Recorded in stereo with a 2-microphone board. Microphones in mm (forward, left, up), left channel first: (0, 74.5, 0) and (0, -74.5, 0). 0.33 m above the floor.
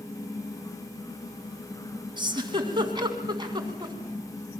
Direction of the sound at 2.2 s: 30° right (ahead or behind).